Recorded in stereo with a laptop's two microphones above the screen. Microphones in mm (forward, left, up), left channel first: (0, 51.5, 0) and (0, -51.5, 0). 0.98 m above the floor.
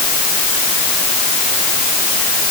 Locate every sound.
Only background noise.